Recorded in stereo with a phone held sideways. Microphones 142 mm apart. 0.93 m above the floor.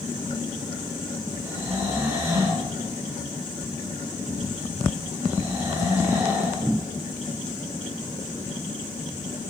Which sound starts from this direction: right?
Snoring, at 1.4 s.